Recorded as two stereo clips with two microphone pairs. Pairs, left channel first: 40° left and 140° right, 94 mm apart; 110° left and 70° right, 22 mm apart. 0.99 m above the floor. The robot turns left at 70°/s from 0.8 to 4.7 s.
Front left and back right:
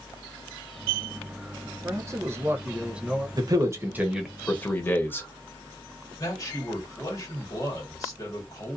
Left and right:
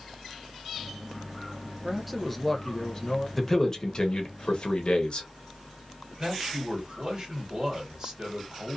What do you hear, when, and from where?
1.8 s a man speaking: 135° right, 0.6 m; by 3.3 s 125° left, 0.6 m
3.4 s a man speaking: 165° right, 0.8 m; by 5.3 s 100° left, 0.8 m
6.2 s a man speaking: 15° right, 1.5 m